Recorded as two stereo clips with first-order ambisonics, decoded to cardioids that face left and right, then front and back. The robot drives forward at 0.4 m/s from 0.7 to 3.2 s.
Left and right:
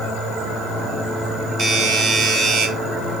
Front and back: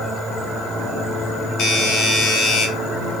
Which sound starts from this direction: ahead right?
A doorbell, at 1.6 s.